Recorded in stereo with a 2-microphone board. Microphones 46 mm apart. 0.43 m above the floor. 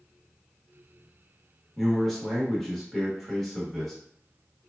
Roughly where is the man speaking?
Centre.